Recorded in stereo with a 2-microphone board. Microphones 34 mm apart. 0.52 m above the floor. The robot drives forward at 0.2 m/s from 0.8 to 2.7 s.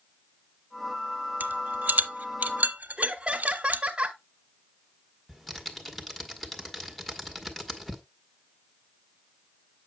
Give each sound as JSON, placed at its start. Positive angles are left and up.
{"t": 1.4, "sound": "a rattle", "side_deg": -70, "distance_m": 1.0}
{"t": 3.0, "sound": "laughter", "side_deg": -30, "distance_m": 0.9}
{"t": 5.3, "sound": "typing on a keyboard", "side_deg": 5, "distance_m": 1.4}